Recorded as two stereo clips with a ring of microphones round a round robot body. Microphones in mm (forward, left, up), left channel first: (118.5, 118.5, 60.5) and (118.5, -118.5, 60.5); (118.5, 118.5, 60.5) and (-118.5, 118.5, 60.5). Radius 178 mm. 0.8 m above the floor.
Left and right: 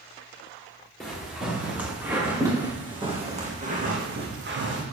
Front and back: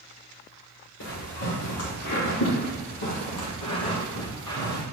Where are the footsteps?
Straight ahead, 3.5 m; by 4.8 s 55° right, 2 m.